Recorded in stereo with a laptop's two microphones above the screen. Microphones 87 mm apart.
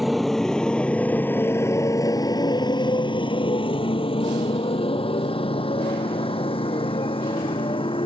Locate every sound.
0.0 s a motorcycle: centre (ahead or behind); by 8.1 s 75° left (ahead or behind)